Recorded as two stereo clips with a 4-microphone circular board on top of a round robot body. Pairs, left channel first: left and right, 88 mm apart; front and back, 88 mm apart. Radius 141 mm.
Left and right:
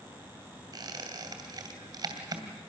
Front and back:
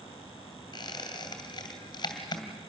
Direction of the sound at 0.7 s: 45° right.